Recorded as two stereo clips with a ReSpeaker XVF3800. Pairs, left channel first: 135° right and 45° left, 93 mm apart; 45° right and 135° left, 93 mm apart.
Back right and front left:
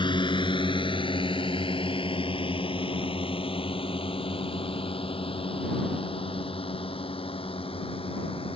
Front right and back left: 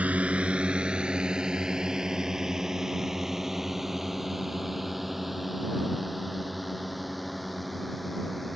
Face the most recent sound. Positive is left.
turn(degrees=-135)